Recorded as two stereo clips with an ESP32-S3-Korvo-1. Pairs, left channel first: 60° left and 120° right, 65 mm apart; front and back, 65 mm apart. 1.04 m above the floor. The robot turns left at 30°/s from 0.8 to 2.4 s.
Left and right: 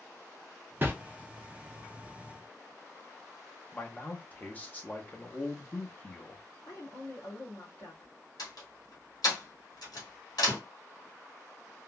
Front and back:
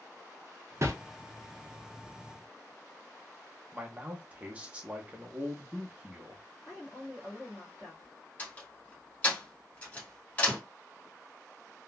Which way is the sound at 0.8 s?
165° right.